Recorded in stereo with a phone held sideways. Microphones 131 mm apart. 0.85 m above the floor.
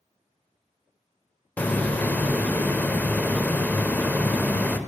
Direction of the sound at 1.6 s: 15° left (ahead or behind).